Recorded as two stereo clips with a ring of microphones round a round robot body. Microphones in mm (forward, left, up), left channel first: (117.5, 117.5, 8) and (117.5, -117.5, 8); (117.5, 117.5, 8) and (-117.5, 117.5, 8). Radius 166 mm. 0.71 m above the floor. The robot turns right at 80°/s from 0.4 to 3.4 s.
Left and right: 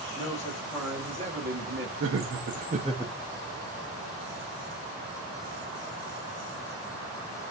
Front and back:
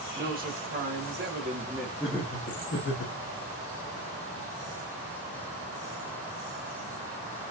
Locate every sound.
0.1 s a man speaking: 150° left, 1.4 m; by 1.9 s 90° right, 1.4 m
2.0 s laughter: 95° right, 0.7 m; by 3.1 s 5° right, 0.7 m